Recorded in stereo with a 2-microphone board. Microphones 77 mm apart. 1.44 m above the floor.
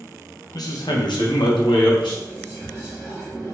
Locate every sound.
0.5 s a man speaking: 55° left (ahead or behind), 0.8 m; by 2.1 s 75° left (ahead or behind), 1.3 m
2.2 s whispering: 50° left (ahead or behind), 1.3 m